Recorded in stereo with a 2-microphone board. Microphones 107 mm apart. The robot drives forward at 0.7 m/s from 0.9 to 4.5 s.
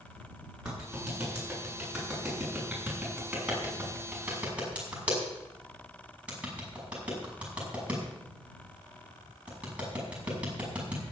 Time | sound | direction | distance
0.7 | a clap | 10° right (ahead or behind) | 8 m